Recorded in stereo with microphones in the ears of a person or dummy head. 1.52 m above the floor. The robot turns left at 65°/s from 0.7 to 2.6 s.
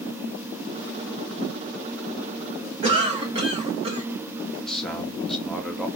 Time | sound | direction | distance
2.8 | a cough | 35° right (ahead or behind) | 0.9 m
4.6 | a man speaking | centre (ahead or behind) | 0.6 m